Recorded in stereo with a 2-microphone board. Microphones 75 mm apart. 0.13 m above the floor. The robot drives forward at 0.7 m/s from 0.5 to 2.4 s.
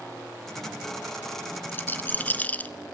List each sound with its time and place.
1.7 s a rattle: 25° left (ahead or behind), 0.7 m; by 2.7 s 20° left (ahead or behind), 0.8 m